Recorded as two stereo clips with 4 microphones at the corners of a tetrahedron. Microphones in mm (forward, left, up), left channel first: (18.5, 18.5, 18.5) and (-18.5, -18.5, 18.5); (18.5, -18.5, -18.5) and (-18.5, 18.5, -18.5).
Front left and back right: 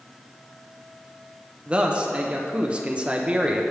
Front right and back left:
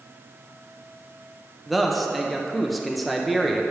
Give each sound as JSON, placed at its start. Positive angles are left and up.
{"t": 1.7, "sound": "a man speaking", "azimuth_deg": -140, "distance_m": 0.6}